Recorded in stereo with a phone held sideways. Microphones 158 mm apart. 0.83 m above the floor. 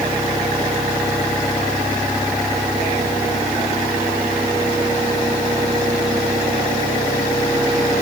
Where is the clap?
No clap in this recording.